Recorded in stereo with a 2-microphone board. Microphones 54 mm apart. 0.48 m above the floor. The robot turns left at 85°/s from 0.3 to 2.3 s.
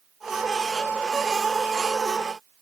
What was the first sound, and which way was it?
Only background noise.